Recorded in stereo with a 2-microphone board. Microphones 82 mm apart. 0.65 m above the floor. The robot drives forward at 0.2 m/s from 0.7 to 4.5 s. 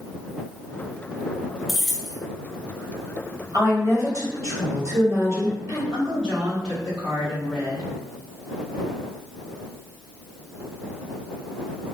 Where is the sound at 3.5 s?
40° right (ahead or behind), 1.6 m; by 5.8 s 35° right (ahead or behind), 1.7 m.